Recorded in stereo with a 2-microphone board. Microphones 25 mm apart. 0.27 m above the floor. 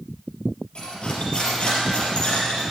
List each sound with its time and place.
0.8 s cutlery clinking: 45° left (ahead or behind), 4 m